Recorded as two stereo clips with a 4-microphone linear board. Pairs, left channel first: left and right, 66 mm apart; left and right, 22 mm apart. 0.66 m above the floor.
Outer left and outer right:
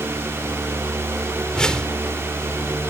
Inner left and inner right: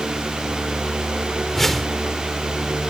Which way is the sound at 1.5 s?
10° left (ahead or behind).